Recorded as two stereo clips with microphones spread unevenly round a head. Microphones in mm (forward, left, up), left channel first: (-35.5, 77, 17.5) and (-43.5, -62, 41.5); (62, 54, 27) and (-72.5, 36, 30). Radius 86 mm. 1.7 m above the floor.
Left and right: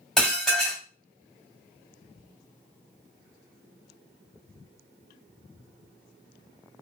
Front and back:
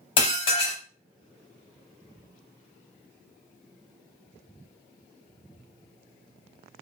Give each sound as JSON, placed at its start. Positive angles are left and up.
{"t": 0.2, "sound": "dishes clattering", "azimuth_deg": -15, "distance_m": 0.8}